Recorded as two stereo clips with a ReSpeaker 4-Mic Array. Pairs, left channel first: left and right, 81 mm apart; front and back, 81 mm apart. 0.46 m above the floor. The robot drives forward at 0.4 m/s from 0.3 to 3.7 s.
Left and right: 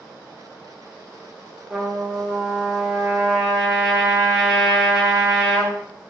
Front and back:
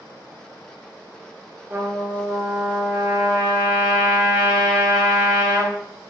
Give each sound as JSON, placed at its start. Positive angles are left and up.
{"t": 1.7, "sound": "a trumpet", "azimuth_deg": -170, "distance_m": 0.9}